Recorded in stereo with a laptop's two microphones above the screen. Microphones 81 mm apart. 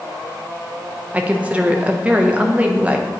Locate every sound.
1.1 s a woman speaking: 15° right (ahead or behind), 0.5 m